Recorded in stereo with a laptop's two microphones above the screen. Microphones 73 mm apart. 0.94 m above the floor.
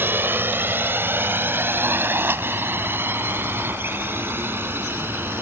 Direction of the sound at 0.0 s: 30° right (ahead or behind).